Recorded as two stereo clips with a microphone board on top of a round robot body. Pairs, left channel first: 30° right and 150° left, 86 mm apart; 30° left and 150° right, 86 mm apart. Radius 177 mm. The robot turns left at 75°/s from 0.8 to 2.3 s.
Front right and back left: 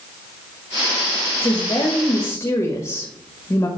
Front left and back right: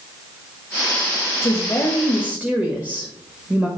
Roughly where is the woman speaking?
Ahead.